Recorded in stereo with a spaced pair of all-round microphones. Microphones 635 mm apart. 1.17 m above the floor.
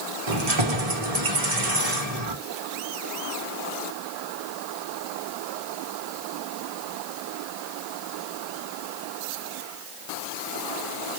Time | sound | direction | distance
0.3 | keys jangling | 65° right (ahead or behind) | 1.1 m